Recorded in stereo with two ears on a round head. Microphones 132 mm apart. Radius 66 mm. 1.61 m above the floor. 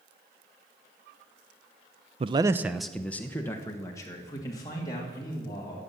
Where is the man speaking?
40° right (ahead or behind), 0.6 m; by 5.8 s 30° left (ahead or behind), 3.5 m.